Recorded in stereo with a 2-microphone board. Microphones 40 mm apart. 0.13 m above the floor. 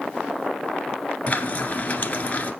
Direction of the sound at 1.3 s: 35° left (ahead or behind).